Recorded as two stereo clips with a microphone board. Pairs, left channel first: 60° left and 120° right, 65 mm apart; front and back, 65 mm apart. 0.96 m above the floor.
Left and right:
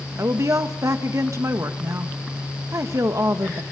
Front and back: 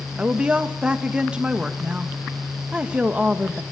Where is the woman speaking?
110° right, 1.3 m.